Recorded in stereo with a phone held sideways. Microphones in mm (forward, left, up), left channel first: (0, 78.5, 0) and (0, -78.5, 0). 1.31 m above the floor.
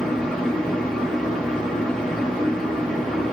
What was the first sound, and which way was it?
A fan, 5° left (ahead or behind).